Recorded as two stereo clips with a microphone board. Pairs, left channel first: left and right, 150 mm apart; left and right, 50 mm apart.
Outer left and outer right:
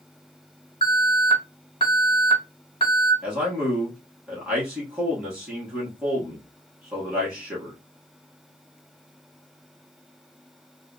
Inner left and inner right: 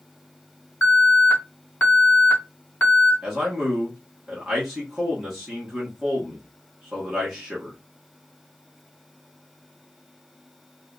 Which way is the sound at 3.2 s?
5° right (ahead or behind).